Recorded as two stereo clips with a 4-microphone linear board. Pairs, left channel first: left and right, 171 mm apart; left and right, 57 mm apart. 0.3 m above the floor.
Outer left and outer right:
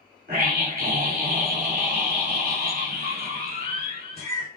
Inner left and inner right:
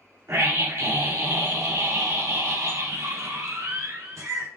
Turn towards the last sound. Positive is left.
turn(degrees=-65)  # may be behind; listen again after turning